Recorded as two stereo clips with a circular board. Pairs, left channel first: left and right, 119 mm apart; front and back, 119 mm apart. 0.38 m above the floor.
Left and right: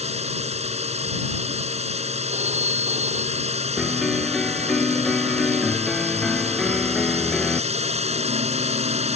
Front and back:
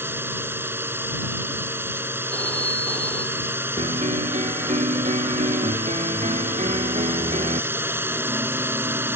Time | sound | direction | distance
0.0 | a drone | 110° right | ?
2.3 | a phone ringing | 80° right | ?
3.8 | a piano | 175° left | ?